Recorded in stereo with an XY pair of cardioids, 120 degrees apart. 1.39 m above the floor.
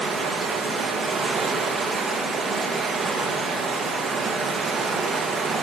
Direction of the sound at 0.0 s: 35° right.